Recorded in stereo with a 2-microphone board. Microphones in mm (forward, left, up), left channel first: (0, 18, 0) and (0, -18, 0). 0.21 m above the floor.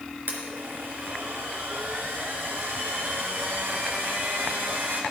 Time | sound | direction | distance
0.3 | a blender | 65° right (ahead or behind) | 3.5 m